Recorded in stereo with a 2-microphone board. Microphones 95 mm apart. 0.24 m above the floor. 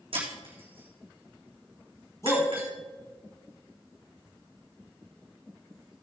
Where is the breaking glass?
70° right (ahead or behind), 3.5 m.